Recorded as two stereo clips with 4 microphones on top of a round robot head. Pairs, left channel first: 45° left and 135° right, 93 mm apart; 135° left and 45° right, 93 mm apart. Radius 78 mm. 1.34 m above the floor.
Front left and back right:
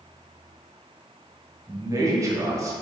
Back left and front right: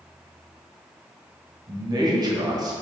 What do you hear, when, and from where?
1.7 s a man speaking: 85° right, 1.6 m